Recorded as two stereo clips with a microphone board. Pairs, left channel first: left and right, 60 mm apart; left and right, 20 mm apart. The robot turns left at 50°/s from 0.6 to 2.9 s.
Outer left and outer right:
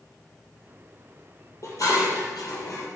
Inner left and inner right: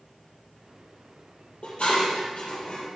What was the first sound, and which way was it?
Dishes clattering, 55° left (ahead or behind).